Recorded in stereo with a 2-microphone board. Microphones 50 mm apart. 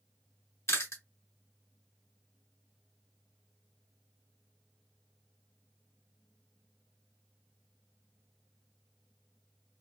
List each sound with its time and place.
0.7 s chewing: 65° left (ahead or behind), 1.2 m